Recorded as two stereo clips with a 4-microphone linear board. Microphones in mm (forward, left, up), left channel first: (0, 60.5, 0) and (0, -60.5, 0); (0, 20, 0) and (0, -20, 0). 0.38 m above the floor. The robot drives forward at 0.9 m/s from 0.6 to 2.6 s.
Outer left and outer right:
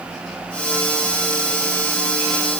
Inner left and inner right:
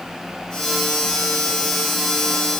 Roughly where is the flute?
No flute in this recording.